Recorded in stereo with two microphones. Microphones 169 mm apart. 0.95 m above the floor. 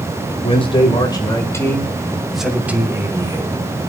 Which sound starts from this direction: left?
A man speaking, at 0.4 s.